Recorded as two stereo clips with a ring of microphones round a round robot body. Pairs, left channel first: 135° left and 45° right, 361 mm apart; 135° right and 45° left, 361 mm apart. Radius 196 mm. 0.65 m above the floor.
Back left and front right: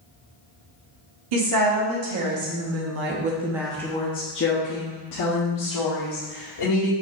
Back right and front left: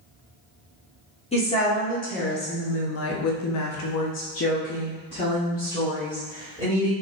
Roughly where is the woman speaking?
Ahead right.